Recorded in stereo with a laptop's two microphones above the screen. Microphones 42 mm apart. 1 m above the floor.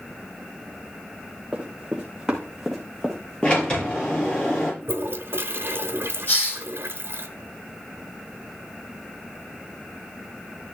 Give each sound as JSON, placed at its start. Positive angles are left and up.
{"t": 1.5, "sound": "running footsteps", "side_deg": -25, "distance_m": 3.5}
{"t": 3.4, "sound": "a sliding door", "side_deg": 25, "distance_m": 7.0}
{"t": 4.8, "sound": "a toilet flushing", "side_deg": -55, "distance_m": 1.0}
{"t": 6.3, "sound": "a hiss", "side_deg": 45, "distance_m": 5.0}